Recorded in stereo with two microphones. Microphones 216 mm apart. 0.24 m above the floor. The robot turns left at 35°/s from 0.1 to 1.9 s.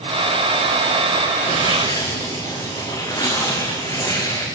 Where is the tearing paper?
30° left (ahead or behind), 6.5 m; by 4.5 s 15° left (ahead or behind), 6.5 m.